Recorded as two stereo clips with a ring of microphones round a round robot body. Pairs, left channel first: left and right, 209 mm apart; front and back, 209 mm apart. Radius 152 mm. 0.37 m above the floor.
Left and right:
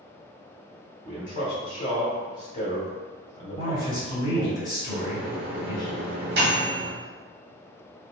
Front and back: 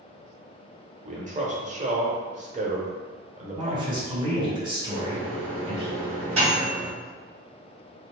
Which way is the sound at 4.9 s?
120° right.